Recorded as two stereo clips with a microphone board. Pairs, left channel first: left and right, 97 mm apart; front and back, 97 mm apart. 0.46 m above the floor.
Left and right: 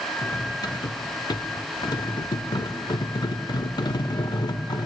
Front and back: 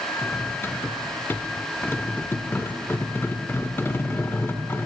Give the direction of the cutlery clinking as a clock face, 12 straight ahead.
10 o'clock.